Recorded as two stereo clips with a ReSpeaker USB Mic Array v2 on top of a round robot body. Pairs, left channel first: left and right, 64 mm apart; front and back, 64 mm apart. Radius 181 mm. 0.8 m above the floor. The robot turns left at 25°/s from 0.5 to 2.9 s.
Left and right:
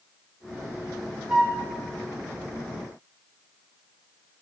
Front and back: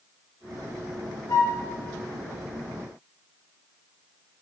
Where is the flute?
5° right, 2.5 m; by 1.6 s 15° right, 2.5 m.